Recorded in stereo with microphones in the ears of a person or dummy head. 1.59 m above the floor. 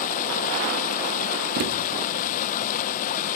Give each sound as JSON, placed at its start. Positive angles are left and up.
{"t": 0.0, "sound": "running water", "side_deg": 45, "distance_m": 0.9}
{"t": 1.6, "sound": "a thud", "side_deg": -50, "distance_m": 1.3}